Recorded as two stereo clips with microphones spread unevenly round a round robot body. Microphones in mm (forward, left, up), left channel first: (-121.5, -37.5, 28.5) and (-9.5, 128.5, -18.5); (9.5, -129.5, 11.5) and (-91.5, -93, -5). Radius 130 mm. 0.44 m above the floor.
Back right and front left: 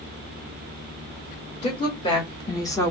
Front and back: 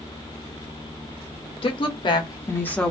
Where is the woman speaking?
50° right, 1.5 m; by 2.9 s 135° left, 0.9 m.